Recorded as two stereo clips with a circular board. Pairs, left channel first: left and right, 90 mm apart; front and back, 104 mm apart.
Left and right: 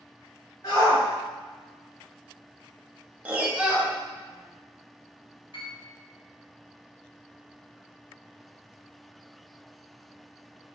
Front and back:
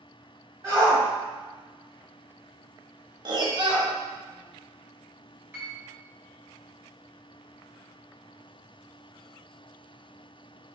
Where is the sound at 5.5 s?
110° left, 2.5 m.